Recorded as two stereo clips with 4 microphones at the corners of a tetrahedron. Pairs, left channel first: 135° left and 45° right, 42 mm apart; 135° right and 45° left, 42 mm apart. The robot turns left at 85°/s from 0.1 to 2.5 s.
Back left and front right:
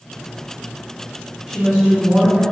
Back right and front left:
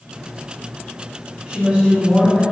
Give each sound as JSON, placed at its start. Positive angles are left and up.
{"t": 1.5, "sound": "a woman speaking", "azimuth_deg": 40, "distance_m": 1.6}